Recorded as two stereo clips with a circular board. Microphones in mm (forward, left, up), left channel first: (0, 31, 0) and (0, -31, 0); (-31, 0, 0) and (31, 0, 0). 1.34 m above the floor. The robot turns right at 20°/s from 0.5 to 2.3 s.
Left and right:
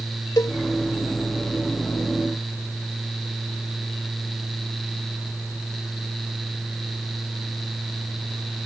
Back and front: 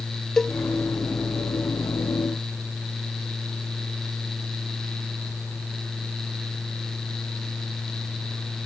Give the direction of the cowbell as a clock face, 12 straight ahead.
9 o'clock.